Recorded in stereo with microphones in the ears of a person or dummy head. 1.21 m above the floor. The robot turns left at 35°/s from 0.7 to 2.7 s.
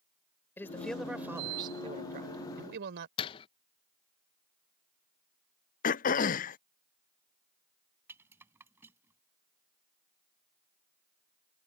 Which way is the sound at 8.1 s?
15° right (ahead or behind).